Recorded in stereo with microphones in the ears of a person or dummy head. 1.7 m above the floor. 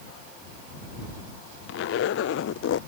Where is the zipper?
80° left.